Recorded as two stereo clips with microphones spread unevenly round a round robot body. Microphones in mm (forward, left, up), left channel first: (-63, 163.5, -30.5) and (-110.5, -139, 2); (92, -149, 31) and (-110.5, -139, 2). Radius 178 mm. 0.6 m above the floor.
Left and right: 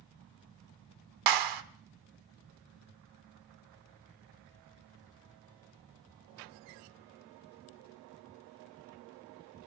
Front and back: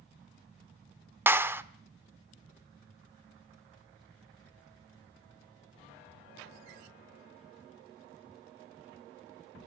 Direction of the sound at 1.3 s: 105° right.